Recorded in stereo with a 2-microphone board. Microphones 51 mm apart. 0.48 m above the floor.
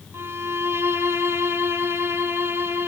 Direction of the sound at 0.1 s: 60° right (ahead or behind).